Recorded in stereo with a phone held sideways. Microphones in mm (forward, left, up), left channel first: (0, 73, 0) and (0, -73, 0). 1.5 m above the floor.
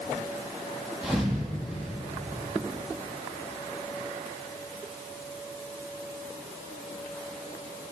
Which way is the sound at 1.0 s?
5° right (ahead or behind).